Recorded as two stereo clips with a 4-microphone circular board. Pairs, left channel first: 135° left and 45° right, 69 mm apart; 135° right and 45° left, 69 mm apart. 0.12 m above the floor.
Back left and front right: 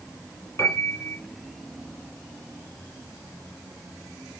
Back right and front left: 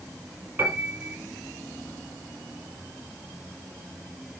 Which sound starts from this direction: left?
A piano, at 0.6 s.